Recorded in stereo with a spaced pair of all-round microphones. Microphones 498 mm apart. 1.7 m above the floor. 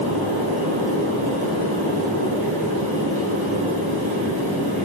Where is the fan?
65° right (ahead or behind), 1.6 m.